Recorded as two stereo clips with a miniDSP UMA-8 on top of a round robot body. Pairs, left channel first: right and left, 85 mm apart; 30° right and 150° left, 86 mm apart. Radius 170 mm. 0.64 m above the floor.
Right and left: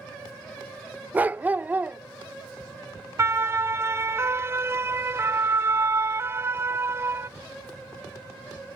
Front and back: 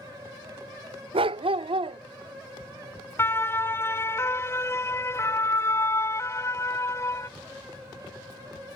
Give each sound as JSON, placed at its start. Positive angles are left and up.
{"t": 1.1, "sound": "a dog barking", "azimuth_deg": 165}
{"t": 3.2, "sound": "a siren", "azimuth_deg": 30}